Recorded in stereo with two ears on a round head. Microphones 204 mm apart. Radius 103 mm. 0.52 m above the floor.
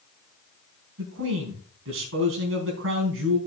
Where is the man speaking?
65° right (ahead or behind), 4 m.